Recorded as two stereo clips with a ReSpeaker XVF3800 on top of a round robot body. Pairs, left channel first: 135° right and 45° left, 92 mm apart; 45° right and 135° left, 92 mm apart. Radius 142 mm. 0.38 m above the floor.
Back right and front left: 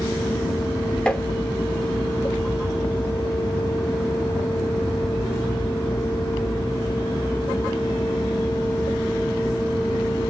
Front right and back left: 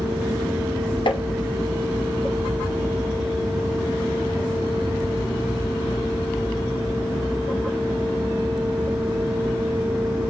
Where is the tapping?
55° right, 0.6 m.